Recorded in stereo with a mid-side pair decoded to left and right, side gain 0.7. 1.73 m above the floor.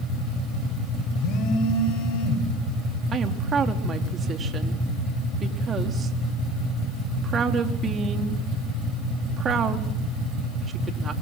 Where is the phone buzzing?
55° left, 10 m.